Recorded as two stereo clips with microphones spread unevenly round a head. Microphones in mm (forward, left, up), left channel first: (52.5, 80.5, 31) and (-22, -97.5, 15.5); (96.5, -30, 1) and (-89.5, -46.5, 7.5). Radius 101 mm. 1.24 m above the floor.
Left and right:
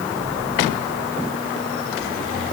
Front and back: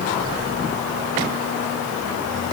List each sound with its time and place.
Only background noise.